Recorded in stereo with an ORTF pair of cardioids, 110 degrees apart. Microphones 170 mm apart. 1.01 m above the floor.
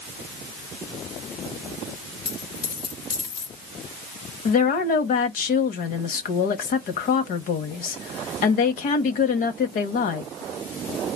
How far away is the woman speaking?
About 1.3 m.